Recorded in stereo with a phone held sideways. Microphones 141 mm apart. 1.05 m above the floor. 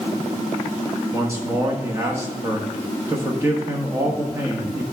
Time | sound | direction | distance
1.1 | a man speaking | 20° right (ahead or behind) | 1.1 m